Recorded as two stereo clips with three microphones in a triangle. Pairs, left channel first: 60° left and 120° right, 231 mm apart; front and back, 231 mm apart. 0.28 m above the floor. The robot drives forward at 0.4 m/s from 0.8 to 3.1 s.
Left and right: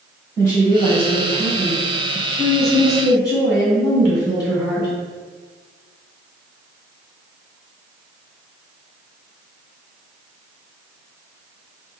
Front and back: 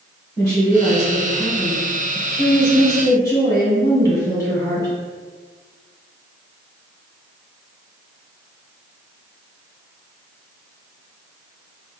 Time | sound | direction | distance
0.4 | a woman speaking | 15° right | 1.9 m